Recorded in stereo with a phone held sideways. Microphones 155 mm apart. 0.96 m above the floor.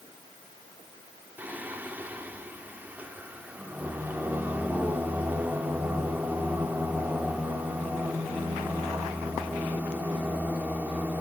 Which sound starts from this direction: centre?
Singing, at 1.4 s.